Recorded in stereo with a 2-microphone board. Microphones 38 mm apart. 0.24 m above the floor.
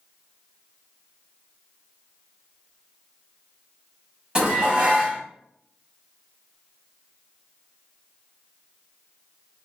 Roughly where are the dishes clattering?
Right.